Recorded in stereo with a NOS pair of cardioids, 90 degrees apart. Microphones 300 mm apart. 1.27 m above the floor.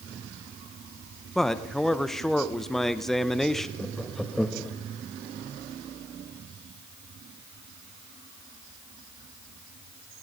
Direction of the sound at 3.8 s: Straight ahead.